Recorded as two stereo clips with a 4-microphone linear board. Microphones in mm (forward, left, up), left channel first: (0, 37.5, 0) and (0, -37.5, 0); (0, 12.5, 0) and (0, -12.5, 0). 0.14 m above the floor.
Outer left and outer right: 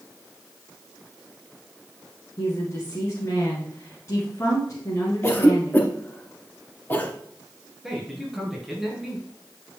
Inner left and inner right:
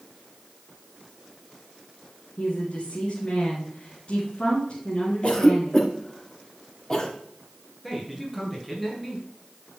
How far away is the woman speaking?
About 2 m.